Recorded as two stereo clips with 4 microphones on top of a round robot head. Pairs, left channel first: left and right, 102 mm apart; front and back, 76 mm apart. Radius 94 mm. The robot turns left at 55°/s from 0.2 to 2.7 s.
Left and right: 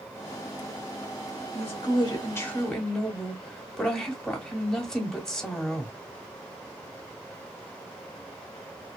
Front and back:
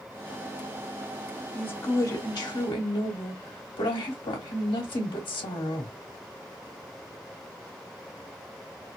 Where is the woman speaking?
70° left, 0.9 m; by 5.9 s 10° left, 0.9 m.